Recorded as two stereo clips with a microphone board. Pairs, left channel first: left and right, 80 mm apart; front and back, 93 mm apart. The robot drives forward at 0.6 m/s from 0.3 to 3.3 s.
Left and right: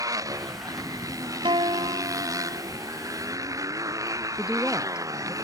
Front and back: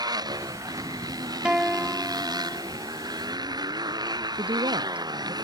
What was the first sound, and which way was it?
A motorcycle, 135° right.